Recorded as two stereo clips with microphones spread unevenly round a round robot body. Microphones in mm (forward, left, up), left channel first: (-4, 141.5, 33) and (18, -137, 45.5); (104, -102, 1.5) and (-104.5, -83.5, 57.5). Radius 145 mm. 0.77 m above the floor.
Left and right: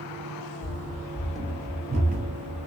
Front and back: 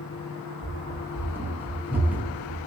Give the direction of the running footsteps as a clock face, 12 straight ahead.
8 o'clock.